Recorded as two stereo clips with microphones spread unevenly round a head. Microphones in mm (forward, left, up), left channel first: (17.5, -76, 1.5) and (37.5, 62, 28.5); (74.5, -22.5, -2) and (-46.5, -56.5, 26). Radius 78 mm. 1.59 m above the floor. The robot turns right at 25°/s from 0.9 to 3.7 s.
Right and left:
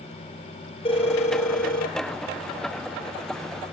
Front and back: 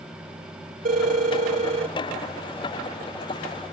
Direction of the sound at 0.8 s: 160° right.